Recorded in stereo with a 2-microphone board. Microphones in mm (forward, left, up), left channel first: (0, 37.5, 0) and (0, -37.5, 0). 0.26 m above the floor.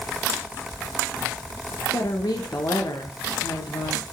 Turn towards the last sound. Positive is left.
turn(degrees=60)  # may be behind; listen again after turning